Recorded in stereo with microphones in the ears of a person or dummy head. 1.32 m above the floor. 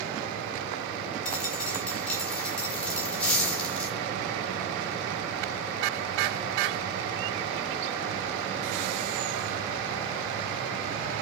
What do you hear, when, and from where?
1.2 s a dropped coin: 5° left (ahead or behind), 5.5 m